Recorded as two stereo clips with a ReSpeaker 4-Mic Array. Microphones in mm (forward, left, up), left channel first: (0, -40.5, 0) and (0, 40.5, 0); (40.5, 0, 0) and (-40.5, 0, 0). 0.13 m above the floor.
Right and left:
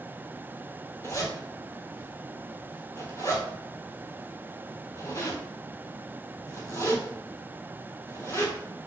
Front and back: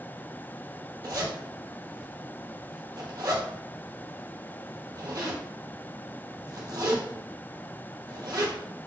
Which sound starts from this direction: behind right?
A zipper, at 1.0 s.